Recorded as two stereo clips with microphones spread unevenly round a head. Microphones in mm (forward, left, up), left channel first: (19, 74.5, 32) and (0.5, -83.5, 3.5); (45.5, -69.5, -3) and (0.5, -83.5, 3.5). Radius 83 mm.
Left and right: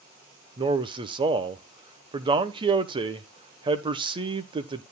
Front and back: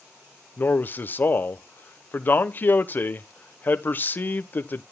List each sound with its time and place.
0.6 s a man speaking: 35° right, 1.1 m